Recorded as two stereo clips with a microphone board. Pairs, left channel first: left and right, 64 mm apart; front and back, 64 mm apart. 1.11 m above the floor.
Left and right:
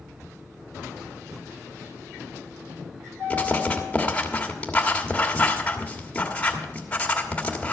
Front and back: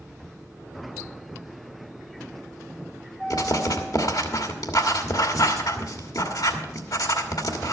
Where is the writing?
20° left, 1.4 m.